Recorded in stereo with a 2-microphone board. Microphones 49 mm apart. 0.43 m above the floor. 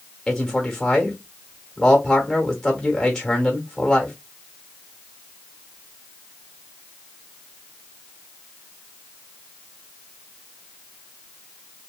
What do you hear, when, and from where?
0.3 s a man speaking: 10° left (ahead or behind), 1.0 m